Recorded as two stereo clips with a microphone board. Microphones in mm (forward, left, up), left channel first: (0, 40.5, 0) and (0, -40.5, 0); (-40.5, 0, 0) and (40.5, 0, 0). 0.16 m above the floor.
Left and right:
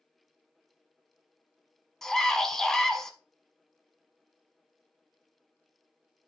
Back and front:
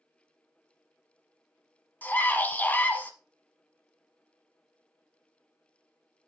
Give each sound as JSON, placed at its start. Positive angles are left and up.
{"t": 2.0, "sound": "a scream", "azimuth_deg": 165, "distance_m": 1.1}